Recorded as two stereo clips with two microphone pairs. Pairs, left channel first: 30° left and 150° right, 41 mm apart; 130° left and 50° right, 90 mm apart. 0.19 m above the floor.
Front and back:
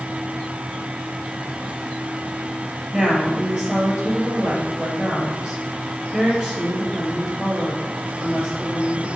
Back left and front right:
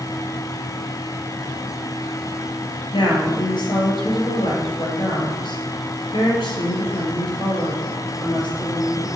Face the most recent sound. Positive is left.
turn(degrees=155)